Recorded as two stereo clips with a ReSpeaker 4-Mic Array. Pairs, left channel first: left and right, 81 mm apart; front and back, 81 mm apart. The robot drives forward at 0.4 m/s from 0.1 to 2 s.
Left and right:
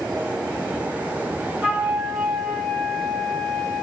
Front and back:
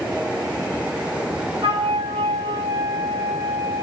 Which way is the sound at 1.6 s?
175° right.